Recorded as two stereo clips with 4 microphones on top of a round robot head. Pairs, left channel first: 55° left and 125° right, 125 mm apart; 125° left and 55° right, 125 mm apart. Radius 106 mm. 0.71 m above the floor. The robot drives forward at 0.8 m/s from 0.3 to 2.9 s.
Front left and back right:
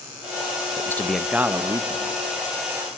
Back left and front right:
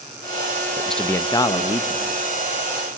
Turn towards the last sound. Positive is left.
turn(degrees=175)